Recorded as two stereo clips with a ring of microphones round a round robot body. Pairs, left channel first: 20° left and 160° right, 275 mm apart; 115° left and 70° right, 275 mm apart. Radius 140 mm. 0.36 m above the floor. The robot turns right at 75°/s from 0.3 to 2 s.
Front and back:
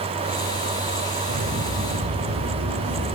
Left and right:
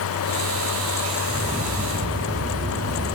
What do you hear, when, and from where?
1.3 s footsteps: 175° right, 6 m; by 3.1 s 115° right, 5.5 m